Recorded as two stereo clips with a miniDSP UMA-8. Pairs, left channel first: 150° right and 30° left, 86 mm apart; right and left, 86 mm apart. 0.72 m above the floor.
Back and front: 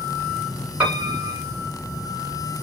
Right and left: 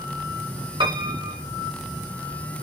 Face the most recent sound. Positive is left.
turn(degrees=100)